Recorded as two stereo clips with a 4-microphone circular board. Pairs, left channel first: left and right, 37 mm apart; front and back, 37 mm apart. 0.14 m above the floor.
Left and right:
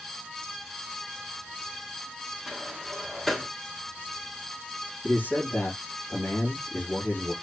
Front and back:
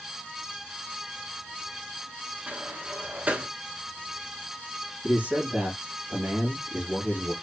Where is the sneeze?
I don't hear a sneeze.